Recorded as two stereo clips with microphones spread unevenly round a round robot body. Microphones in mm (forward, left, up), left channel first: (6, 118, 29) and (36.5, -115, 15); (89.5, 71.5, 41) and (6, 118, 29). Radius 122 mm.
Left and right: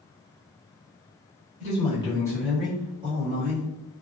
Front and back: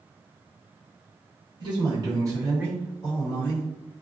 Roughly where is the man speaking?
Behind left.